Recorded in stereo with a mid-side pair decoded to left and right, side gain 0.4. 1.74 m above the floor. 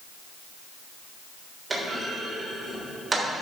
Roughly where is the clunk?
Ahead right.